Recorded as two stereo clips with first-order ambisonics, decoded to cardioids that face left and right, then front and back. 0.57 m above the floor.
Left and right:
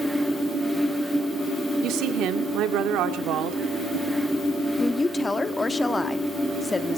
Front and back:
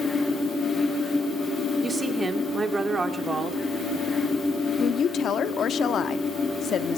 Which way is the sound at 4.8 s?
20° left.